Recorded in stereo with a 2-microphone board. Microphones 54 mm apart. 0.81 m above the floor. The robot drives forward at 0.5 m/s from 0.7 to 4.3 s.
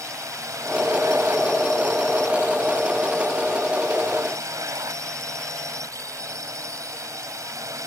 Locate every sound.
0.0 s a drone: 75° right (ahead or behind)